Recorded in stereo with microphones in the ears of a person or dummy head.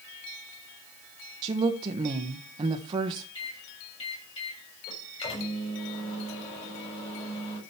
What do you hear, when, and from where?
1.4 s a woman speaking: 30° right (ahead or behind), 1.2 m
3.4 s a microwave: 30° left (ahead or behind), 7 m